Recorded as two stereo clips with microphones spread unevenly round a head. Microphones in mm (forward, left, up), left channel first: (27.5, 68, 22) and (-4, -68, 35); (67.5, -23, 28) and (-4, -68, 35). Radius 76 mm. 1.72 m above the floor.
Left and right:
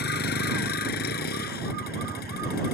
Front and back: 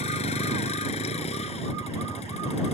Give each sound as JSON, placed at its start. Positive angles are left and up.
{"t": 0.0, "sound": "a vehicle", "azimuth_deg": 55}